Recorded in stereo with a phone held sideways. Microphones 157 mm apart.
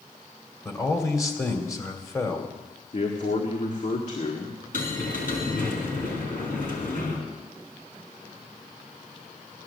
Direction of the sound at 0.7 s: 20° left (ahead or behind).